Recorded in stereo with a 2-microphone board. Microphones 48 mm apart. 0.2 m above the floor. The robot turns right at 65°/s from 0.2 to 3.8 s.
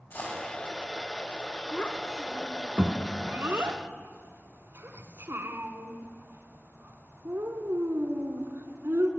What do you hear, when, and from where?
0.1 s a dropped coin: 40° left (ahead or behind), 7 m; by 0.5 s 25° left (ahead or behind), 7 m
1.7 s a child speaking: 30° left (ahead or behind), 1.3 m; by 9.1 s 55° right (ahead or behind), 1.3 m